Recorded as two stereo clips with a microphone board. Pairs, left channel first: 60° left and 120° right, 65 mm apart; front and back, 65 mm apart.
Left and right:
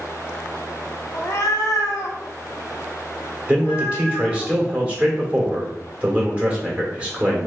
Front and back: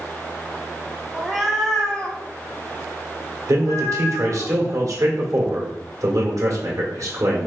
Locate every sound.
1.1 s a cat meowing: 100° left, 1.0 m; by 4.5 s straight ahead, 1.7 m
3.5 s a man speaking: 170° left, 1.6 m